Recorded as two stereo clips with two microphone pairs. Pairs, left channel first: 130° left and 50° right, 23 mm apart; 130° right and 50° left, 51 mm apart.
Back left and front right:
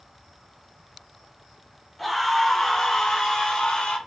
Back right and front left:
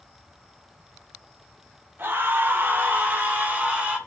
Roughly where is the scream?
Ahead left.